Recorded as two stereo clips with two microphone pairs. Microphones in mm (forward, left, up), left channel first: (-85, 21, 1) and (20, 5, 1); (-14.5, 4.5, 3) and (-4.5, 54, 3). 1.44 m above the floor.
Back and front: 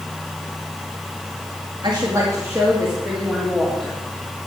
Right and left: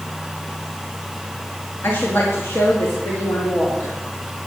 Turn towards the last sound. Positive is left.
turn(degrees=-105)